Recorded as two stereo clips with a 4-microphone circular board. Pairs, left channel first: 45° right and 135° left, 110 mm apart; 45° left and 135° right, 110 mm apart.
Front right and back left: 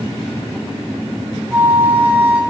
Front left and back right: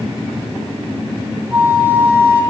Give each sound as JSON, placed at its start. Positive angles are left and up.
{"t": 1.5, "sound": "a flute", "azimuth_deg": -175, "distance_m": 1.6}